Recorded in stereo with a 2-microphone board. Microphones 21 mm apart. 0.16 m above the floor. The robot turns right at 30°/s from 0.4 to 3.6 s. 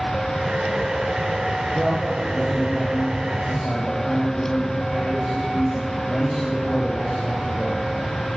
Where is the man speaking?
25° right, 7 m; by 7.9 s 30° left, 7 m.